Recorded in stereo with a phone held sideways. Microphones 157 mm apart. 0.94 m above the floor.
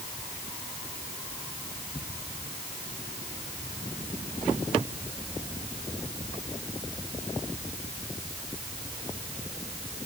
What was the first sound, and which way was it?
Only background noise.